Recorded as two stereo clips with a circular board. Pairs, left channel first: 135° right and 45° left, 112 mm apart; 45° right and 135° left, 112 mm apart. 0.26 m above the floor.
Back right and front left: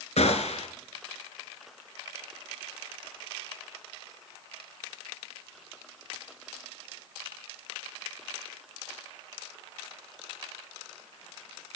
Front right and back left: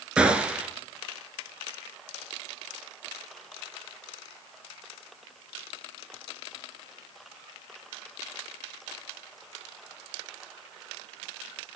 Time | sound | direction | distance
0.2 | a gunshot | 145° right | 1.2 m